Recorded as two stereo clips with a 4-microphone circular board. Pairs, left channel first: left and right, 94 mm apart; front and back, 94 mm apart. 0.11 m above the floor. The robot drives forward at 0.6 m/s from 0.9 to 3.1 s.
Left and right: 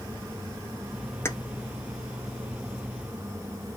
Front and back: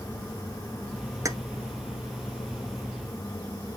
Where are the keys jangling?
140° left, 1.0 m; by 1.4 s 145° left, 1.1 m.